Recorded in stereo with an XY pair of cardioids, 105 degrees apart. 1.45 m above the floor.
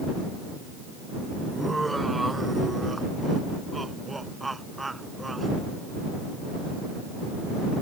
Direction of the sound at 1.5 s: 15° right.